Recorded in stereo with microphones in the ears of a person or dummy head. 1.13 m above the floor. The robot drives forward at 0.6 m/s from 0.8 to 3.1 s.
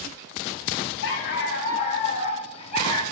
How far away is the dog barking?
About 1.2 m.